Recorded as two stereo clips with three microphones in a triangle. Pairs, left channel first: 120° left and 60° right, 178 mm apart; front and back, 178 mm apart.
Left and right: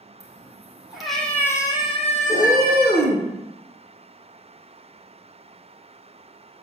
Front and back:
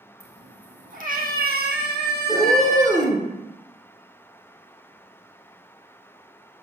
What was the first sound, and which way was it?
A cat meowing, 130° right.